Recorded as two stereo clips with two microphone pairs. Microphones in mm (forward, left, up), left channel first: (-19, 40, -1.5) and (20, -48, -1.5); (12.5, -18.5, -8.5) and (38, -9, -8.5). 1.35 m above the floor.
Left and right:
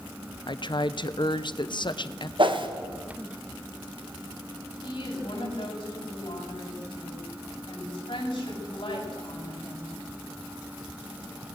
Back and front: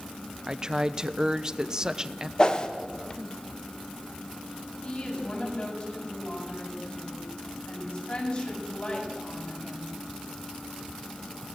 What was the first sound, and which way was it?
A woman speaking, 80° left.